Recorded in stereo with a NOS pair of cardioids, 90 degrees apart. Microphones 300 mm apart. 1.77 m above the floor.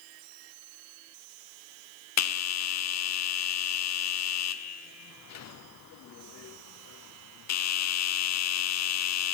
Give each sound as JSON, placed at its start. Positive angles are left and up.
{"t": 2.2, "sound": "a bell", "azimuth_deg": 60, "distance_m": 0.7}